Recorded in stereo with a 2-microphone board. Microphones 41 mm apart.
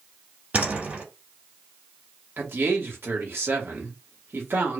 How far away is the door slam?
About 2.5 m.